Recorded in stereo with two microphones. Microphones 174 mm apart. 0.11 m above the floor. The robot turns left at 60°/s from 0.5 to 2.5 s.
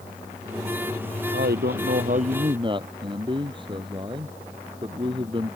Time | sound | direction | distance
1.3 | a man speaking | 80° right | ?